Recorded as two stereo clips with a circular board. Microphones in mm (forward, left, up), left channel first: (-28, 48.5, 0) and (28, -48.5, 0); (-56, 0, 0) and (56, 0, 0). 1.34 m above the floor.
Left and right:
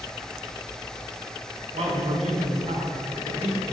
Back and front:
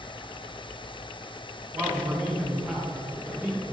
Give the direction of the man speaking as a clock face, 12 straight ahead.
3 o'clock.